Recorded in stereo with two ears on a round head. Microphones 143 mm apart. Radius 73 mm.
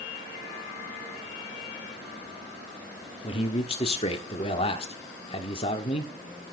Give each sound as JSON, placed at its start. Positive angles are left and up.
{"t": 3.2, "sound": "a man speaking", "side_deg": 40, "distance_m": 1.5}